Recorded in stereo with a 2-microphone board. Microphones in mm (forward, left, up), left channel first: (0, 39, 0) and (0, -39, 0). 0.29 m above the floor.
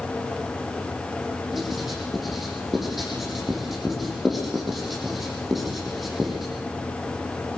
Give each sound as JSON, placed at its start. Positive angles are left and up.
{"t": 1.5, "sound": "writing", "side_deg": 0, "distance_m": 9.0}